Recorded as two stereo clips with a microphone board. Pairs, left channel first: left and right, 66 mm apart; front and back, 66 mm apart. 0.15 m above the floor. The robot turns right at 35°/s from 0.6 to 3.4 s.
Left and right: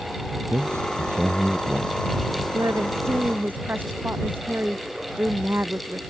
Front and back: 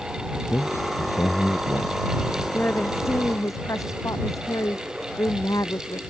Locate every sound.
0.5 s a man speaking: 50° right; by 2.0 s 5° right
2.5 s a woman speaking: 60° right; by 6.0 s 30° right